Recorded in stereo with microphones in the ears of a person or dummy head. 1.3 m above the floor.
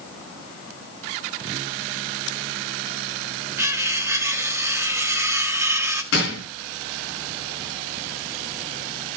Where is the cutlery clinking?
20° right (ahead or behind), 1.4 m.